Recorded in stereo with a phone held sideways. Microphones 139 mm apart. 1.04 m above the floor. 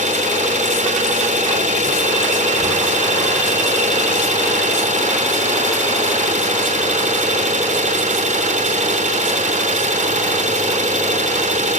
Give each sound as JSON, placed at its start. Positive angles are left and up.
{"t": 0.0, "sound": "an engine running", "side_deg": -60, "distance_m": 3.5}